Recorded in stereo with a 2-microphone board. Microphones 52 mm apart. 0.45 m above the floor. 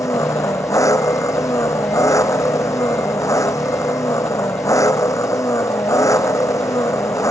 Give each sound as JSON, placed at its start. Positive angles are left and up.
{"t": 0.0, "sound": "an engine running", "side_deg": 85}